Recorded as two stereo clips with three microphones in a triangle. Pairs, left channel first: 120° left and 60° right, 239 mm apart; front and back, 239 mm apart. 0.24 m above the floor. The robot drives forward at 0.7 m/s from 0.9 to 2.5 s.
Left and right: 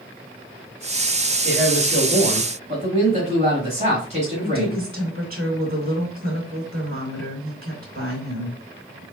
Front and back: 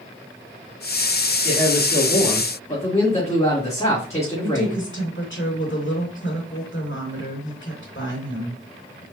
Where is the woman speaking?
20° right, 3 m.